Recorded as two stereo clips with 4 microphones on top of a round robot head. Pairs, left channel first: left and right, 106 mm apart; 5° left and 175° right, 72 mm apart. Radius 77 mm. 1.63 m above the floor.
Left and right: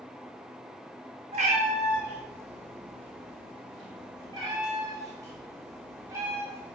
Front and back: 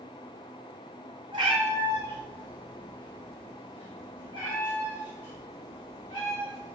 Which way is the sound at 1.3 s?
130° right.